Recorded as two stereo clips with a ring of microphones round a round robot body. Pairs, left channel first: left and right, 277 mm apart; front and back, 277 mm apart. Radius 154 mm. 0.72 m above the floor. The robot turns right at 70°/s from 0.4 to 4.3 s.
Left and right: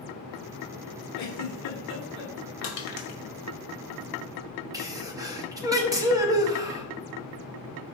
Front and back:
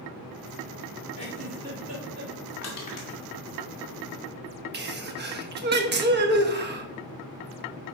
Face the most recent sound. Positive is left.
turn(degrees=-160)